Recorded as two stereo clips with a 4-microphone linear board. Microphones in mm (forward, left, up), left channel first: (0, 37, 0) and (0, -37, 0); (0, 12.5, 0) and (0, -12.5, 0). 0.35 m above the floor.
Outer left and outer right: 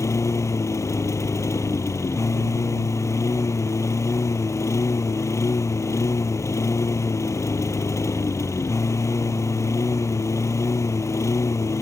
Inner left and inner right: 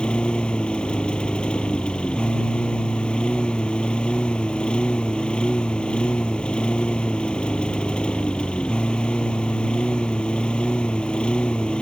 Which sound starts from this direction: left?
A lawn mower, at 0.0 s.